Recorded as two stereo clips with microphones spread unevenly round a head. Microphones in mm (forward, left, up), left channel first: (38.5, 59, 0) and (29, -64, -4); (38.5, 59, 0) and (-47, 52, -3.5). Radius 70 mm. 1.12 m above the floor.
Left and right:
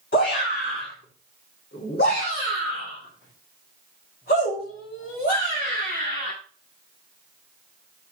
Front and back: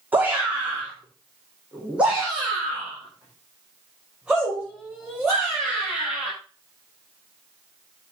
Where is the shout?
115° left, 3 m; by 6.3 s 105° left, 8 m.